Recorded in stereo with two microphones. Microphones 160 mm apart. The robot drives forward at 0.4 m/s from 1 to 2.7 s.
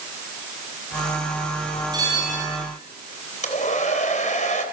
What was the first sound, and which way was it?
A bell, 25° right (ahead or behind).